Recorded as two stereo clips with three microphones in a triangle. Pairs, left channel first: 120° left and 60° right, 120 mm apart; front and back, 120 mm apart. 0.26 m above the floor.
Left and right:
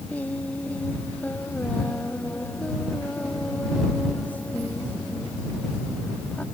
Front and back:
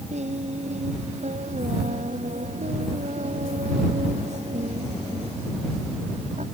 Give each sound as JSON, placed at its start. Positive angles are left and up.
{"t": 0.1, "sound": "singing", "azimuth_deg": -160}